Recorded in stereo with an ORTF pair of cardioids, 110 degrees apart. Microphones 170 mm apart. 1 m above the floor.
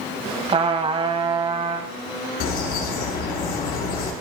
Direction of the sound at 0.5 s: 35° right.